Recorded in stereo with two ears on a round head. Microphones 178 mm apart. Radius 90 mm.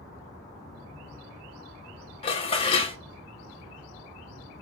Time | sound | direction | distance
2.2 | dishes clattering | 30° left (ahead or behind) | 0.7 m